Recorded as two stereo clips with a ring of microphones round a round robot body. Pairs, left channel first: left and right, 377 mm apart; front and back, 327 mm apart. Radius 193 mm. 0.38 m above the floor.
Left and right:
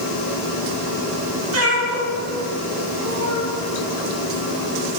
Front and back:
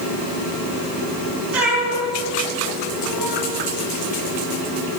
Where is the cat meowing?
145° right, 2 m.